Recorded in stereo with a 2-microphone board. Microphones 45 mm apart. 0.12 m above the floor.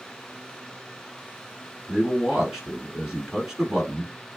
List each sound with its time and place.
1.9 s a man speaking: 10° right (ahead or behind), 1.4 m